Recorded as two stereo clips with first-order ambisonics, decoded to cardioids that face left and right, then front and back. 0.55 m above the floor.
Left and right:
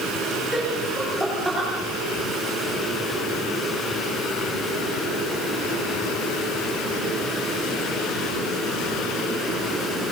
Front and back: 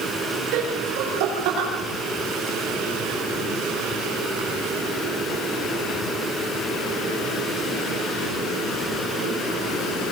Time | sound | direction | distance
0.5 | laughter | straight behind | 9.5 m